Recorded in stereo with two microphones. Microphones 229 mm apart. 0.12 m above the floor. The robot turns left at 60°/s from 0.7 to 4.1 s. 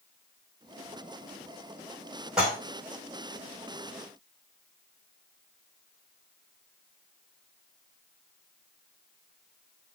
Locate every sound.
2.4 s dishes clattering: 5° right (ahead or behind), 3.5 m; by 2.6 s 15° right (ahead or behind), 3.5 m